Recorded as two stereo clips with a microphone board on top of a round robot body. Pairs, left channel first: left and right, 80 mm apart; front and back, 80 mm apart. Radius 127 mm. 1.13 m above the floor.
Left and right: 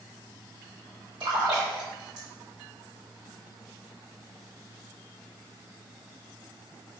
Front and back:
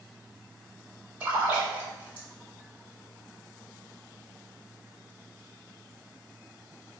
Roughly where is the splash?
Right.